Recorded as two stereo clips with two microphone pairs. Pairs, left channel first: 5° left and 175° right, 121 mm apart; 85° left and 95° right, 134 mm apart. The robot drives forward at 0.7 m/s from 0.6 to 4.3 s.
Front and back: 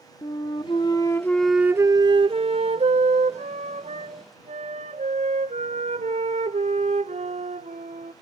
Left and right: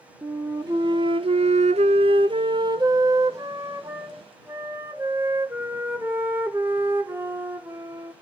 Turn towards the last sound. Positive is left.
turn(degrees=-170)